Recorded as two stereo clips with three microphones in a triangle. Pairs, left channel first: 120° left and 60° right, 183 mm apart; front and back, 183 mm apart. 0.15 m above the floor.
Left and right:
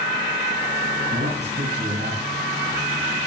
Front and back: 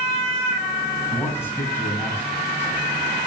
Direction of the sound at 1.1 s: 75° right.